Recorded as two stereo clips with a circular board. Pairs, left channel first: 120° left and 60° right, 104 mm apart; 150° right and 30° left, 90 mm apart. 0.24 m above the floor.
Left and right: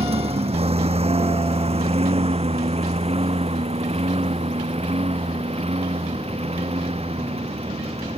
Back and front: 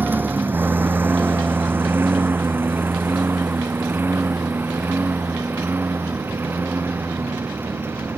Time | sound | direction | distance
0.0 | a lawn mower | 40° right | ?